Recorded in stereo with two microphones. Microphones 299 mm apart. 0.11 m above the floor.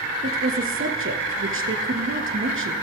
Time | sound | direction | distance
0.2 | a woman speaking | 45° right (ahead or behind) | 1.9 m